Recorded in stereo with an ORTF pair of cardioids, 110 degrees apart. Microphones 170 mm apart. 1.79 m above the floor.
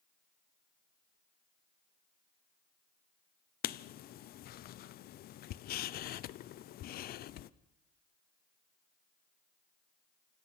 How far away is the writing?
About 0.9 m.